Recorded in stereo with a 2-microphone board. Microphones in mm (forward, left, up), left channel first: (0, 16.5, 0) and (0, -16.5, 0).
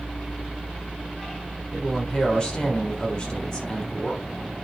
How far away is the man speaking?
About 3.5 m.